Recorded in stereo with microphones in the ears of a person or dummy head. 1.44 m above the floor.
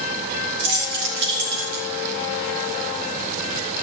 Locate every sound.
0.6 s keys jangling: 65° right (ahead or behind), 4 m; by 1.9 s 55° right (ahead or behind), 3 m